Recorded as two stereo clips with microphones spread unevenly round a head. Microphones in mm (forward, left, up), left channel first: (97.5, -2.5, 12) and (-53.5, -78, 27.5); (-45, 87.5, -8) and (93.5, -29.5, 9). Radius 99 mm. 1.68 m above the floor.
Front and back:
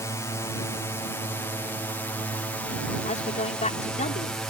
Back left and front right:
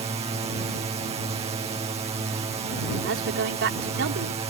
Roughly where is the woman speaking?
Ahead right.